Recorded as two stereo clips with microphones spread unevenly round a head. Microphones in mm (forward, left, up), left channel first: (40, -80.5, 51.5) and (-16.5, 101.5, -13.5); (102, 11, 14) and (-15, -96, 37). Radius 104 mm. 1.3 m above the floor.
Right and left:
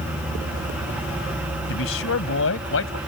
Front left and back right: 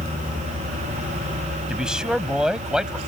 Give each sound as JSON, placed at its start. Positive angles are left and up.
{"t": 1.7, "sound": "a man speaking", "azimuth_deg": -50}